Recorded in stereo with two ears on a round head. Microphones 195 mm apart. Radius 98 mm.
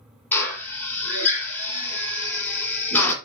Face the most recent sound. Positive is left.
turn(degrees=10)  # may be behind; listen again after turning